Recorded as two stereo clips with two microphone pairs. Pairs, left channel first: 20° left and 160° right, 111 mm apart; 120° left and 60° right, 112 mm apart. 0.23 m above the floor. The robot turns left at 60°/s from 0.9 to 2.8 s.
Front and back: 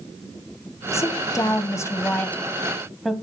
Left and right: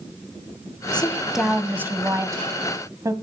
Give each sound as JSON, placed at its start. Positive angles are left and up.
{"t": 0.9, "sound": "a woman speaking", "azimuth_deg": 45, "distance_m": 1.2}